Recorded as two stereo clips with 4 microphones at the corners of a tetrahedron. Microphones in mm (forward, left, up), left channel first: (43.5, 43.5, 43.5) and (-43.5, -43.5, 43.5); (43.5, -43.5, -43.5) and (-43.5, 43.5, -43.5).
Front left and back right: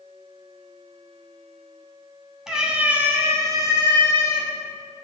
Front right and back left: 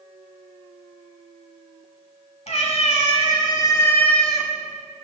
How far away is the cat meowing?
About 1.5 m.